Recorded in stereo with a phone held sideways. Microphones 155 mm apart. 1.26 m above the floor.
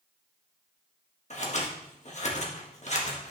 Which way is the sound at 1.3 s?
50° left (ahead or behind).